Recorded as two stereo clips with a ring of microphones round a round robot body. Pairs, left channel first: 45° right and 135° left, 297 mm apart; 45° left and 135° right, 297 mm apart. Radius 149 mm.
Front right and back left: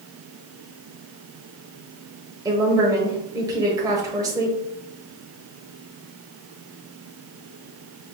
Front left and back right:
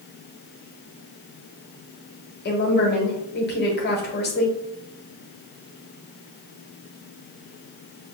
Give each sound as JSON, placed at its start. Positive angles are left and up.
{"t": 2.5, "sound": "a woman speaking", "azimuth_deg": 65, "distance_m": 1.0}